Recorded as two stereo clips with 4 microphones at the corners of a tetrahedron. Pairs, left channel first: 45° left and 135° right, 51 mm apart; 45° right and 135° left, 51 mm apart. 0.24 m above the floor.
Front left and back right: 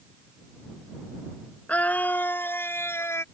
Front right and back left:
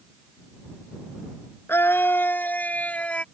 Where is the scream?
15° right; by 3.2 s 20° left.